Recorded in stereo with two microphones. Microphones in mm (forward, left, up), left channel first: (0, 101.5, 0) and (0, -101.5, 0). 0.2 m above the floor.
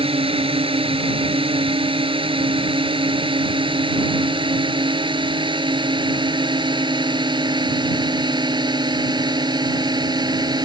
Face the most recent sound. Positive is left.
turn(degrees=-20)  # may be behind; listen again after turning